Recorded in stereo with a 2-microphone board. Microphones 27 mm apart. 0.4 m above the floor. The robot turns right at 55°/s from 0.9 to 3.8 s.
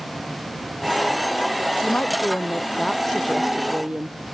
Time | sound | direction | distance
1.8 | a woman speaking | 100° left | ?